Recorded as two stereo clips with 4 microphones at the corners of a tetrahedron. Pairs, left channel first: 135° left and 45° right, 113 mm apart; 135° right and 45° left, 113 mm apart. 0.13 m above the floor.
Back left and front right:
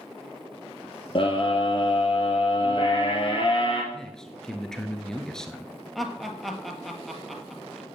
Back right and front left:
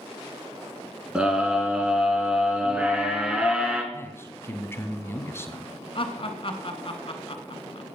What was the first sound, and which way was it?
A scream, 125° left.